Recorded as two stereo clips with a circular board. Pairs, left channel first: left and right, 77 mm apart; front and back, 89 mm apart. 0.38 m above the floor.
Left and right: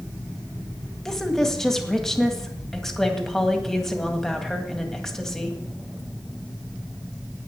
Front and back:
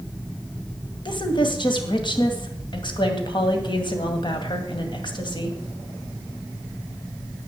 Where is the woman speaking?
10° left, 2 m.